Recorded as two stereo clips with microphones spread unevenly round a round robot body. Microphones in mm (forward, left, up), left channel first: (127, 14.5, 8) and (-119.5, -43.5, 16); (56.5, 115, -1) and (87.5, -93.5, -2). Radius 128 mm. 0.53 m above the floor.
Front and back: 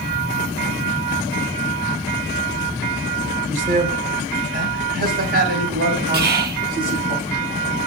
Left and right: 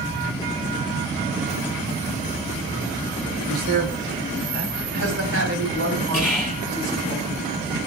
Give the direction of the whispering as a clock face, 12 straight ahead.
6 o'clock.